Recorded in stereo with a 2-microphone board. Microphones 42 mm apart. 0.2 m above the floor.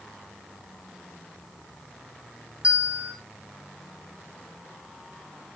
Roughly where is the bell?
Right.